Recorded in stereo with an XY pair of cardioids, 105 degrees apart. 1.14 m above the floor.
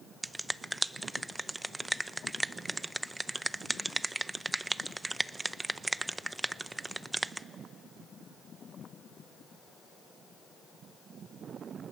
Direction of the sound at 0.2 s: 15° right.